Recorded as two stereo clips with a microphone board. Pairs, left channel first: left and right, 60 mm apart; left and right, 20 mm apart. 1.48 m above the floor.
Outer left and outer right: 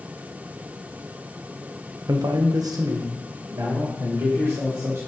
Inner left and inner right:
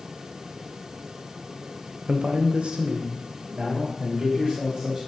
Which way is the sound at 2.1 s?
65° right (ahead or behind).